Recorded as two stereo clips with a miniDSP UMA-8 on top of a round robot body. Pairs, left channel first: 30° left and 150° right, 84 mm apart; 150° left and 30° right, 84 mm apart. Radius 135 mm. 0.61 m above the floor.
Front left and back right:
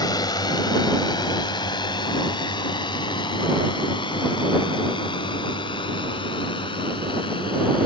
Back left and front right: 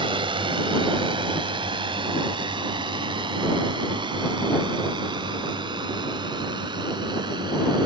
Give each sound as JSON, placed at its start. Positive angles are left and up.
{"t": 0.0, "sound": "a drone", "azimuth_deg": -10}